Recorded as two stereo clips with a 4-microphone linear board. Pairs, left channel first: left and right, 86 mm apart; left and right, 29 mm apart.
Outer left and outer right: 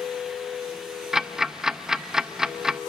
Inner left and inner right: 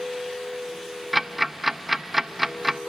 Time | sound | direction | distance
1.1 | ticking | 5° right (ahead or behind) | 0.6 m